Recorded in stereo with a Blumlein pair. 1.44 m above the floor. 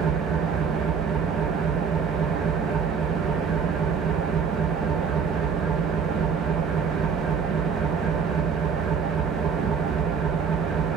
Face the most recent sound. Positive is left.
turn(degrees=-25)